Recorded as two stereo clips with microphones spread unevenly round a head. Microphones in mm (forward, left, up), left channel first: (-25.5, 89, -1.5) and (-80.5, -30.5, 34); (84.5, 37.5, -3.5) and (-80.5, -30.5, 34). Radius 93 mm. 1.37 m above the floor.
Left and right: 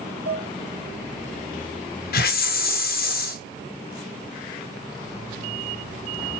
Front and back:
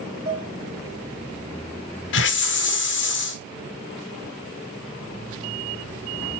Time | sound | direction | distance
0.2 | dishes clattering | 115° right | 4 m
2.1 | a hiss | 50° left | 1.0 m